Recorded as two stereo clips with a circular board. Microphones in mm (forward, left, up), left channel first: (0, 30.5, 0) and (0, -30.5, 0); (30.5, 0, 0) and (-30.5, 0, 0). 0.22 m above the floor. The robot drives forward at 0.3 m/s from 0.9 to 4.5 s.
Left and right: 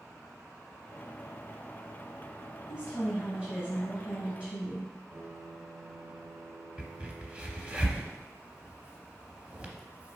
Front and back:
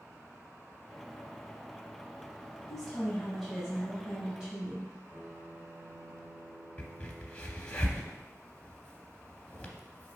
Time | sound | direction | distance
2.7 | a woman speaking | 70° right | 1.6 m
5.1 | a piano | 135° right | 1.6 m
6.8 | a crack | 45° right | 0.6 m